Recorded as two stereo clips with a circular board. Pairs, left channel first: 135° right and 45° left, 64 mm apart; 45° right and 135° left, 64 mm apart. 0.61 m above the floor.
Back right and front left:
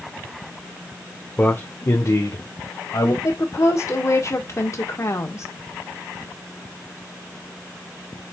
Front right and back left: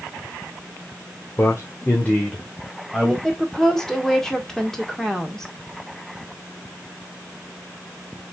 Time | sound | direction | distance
1.4 | a man speaking | 75° right | 1.4 m
3.2 | a woman speaking | 125° right | 1.8 m